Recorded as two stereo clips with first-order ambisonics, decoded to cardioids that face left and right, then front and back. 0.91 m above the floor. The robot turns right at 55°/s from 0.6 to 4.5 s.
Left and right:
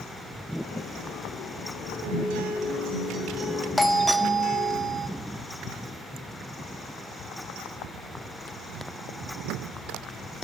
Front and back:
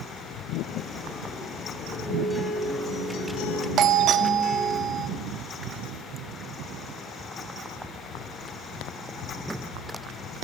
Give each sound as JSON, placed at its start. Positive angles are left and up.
{"t": 2.0, "sound": "a guitar", "azimuth_deg": -95, "distance_m": 6.0}
{"t": 3.8, "sound": "a doorbell", "azimuth_deg": 170, "distance_m": 1.1}